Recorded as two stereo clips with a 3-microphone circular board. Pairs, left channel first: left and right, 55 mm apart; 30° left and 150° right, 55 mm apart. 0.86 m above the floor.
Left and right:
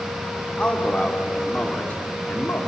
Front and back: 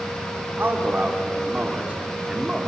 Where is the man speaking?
155° left, 3 m; by 2.7 s 130° left, 2.5 m.